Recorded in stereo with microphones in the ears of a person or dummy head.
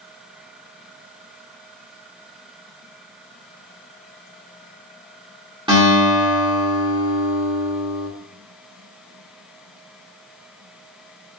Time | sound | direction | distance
5.7 | a guitar | 20° right (ahead or behind) | 1.0 m